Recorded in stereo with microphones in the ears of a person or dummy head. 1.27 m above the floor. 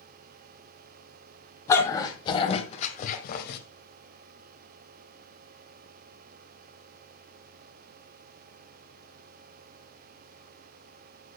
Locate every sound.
1.7 s a dog barking: 15° left (ahead or behind), 2.5 m; by 3.6 s 60° left (ahead or behind), 1.9 m